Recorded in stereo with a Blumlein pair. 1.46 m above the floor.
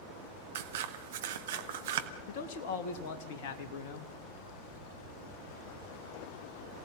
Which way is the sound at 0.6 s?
55° right.